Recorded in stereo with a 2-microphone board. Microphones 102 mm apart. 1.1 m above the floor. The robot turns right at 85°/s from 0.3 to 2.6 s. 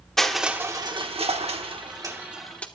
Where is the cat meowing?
I don't hear a cat meowing.